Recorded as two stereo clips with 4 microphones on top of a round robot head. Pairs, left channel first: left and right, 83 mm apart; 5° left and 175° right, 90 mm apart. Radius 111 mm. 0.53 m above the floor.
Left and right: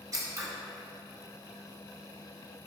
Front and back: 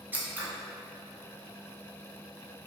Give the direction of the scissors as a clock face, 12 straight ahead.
4 o'clock.